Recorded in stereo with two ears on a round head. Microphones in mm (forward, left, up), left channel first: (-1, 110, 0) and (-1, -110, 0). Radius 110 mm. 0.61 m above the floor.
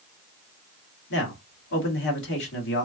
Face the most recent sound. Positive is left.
turn(degrees=50)  # may be behind; listen again after turning